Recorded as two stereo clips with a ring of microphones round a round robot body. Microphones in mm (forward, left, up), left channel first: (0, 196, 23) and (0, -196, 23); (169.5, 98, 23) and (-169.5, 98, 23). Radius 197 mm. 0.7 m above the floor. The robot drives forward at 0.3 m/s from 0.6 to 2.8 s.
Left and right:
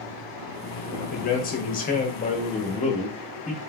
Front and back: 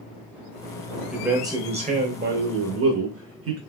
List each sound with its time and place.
1.1 s a man speaking: 90° left, 0.7 m; by 3.6 s 155° left, 0.9 m